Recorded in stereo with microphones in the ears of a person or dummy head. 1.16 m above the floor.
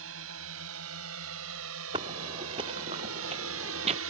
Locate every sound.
0.0 s a drone: 75° right (ahead or behind); by 4.1 s 70° right (ahead or behind)
1.9 s footsteps: 25° right (ahead or behind); by 4.0 s 35° right (ahead or behind)